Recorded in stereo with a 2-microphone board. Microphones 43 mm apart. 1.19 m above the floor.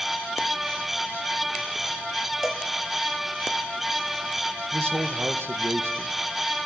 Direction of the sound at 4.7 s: 65° right (ahead or behind).